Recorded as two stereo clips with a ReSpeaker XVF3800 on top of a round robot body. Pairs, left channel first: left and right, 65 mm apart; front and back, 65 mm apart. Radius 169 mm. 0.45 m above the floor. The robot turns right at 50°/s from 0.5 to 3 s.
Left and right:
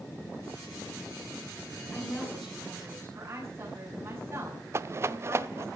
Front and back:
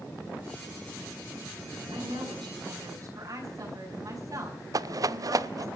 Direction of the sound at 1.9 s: 155° left.